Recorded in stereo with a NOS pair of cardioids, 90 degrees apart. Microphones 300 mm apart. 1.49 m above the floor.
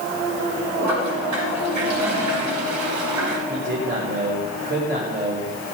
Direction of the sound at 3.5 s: 35° right.